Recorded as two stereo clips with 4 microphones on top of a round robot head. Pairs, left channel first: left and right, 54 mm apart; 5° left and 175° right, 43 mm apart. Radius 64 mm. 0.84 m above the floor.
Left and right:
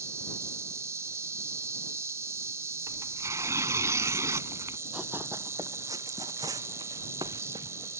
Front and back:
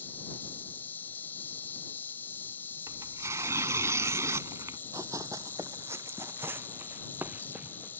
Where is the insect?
55° right.